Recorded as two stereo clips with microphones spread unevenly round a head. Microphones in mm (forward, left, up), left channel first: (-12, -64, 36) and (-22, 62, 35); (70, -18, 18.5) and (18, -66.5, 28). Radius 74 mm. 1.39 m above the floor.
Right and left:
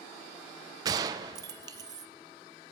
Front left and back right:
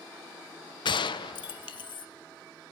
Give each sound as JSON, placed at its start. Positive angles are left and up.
{"t": 0.8, "sound": "a gunshot", "azimuth_deg": 30, "distance_m": 0.7}